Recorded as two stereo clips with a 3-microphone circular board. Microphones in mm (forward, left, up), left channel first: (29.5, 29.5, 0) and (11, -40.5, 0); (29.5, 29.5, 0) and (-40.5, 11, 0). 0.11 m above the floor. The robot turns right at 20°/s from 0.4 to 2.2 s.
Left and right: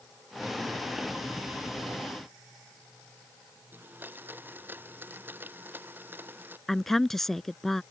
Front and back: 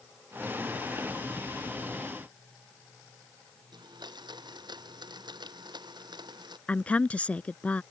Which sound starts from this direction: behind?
A blender, at 3.7 s.